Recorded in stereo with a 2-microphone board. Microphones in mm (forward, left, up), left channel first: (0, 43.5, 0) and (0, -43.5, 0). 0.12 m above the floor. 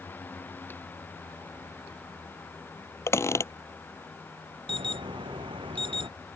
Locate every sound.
3.1 s a squeak: 35° left (ahead or behind)
4.7 s an alarm: 80° right